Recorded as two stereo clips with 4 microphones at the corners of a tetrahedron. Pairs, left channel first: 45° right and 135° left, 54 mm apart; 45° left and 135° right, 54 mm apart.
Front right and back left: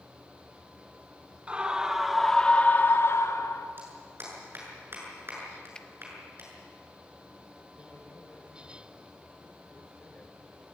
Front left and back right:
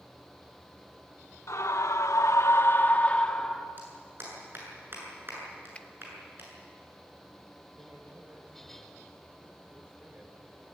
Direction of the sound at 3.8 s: Straight behind.